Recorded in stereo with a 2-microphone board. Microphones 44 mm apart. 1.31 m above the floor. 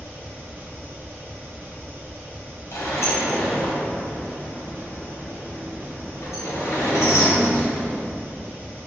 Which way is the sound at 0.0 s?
50° right (ahead or behind).